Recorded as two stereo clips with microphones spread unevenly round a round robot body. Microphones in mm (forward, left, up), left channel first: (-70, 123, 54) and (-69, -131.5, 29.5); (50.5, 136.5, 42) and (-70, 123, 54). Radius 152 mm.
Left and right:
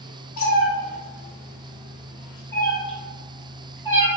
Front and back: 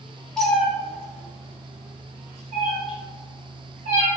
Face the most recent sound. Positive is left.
turn(degrees=-170)